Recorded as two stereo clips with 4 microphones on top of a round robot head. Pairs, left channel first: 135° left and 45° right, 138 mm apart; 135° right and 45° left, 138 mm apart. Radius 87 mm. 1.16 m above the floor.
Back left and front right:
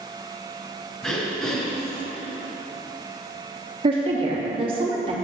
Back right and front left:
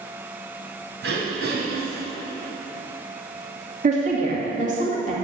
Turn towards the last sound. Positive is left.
turn(degrees=10)